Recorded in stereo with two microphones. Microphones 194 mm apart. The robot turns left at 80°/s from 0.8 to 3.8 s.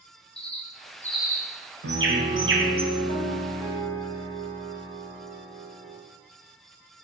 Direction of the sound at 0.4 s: 30° left (ahead or behind).